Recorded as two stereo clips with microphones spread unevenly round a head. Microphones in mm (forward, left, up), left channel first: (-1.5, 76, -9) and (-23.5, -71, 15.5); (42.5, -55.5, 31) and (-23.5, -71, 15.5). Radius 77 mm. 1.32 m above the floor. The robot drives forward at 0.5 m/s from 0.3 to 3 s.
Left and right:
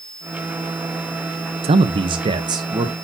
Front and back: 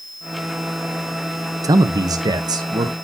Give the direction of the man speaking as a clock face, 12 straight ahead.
5 o'clock.